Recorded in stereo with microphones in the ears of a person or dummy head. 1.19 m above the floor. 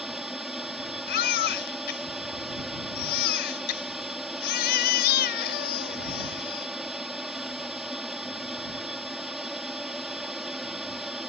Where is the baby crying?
50° left (ahead or behind).